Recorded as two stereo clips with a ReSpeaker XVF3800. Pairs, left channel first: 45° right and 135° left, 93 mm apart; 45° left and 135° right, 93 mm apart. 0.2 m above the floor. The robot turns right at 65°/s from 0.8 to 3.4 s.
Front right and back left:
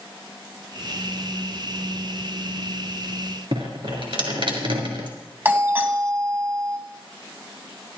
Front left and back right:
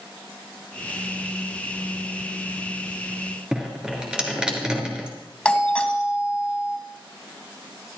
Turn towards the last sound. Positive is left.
turn(degrees=105)